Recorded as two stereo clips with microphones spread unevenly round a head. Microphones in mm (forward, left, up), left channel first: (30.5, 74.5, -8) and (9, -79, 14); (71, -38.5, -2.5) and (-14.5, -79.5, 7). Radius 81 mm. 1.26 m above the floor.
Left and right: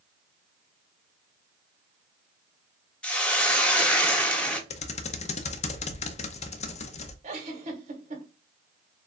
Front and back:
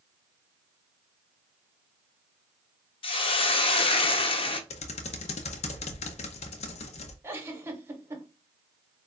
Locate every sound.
3.0 s a hiss: straight ahead, 0.9 m
4.7 s typing on a keyboard: 35° left, 0.6 m
7.2 s a giggle: 105° right, 1.4 m